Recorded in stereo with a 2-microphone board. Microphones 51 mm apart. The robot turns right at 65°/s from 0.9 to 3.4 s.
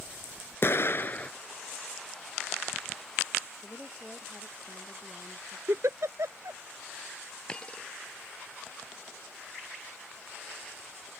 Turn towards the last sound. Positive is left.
turn(degrees=20)  # may be behind; listen again after turning